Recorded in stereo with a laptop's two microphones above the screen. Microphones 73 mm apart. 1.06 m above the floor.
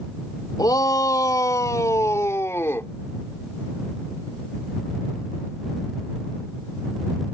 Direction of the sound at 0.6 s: 60° left (ahead or behind).